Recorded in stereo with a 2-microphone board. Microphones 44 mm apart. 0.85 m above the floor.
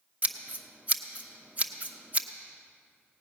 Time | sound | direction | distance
0.2 | scissors | 35° right (ahead or behind) | 0.8 m